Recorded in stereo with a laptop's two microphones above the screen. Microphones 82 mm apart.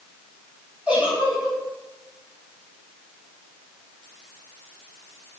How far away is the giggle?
About 3.5 m.